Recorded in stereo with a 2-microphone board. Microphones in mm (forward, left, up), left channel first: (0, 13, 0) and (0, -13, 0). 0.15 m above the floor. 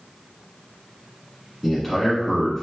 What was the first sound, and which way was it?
A man speaking, 10° left (ahead or behind).